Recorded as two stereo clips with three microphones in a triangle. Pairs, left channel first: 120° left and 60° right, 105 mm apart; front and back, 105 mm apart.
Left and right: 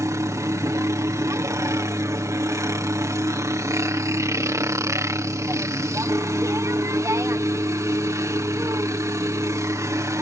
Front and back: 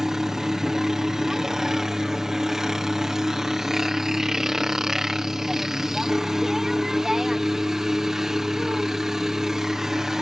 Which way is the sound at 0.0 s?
100° right.